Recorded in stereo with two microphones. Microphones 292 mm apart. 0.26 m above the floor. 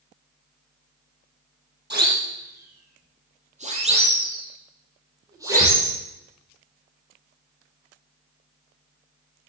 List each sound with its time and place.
1.9 s a siren: 35° right (ahead or behind), 5.5 m; by 5.9 s 5° right (ahead or behind), 6 m